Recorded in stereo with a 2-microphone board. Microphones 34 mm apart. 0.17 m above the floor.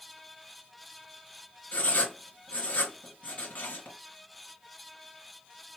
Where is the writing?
50° left (ahead or behind), 2 m.